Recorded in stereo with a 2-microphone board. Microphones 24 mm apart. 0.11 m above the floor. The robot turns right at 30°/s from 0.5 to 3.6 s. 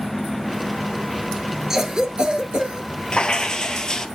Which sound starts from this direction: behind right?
A cough, at 1.7 s.